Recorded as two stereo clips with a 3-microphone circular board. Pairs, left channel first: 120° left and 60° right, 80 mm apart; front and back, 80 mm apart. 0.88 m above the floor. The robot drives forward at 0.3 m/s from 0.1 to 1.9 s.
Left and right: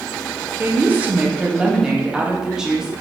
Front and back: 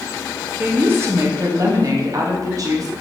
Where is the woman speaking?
115° right, 0.7 m; by 2.9 s 140° right, 0.9 m.